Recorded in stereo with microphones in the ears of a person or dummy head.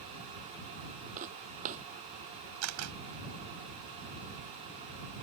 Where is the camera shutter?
80° right.